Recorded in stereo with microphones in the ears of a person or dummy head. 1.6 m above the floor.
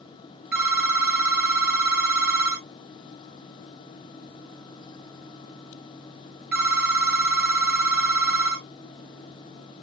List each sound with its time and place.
0.5 s a phone ringing: 5° right (ahead or behind), 1.6 m